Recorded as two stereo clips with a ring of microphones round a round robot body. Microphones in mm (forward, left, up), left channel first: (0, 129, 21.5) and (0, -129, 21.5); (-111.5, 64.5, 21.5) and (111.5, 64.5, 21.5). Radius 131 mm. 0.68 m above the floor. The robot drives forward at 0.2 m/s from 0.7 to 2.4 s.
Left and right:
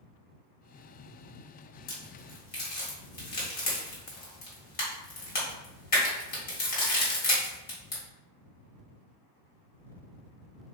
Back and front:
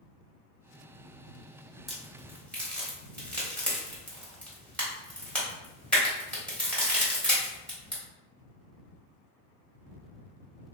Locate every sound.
1.9 s a crack: 90° left, 1.3 m; by 8.0 s 100° left, 1.3 m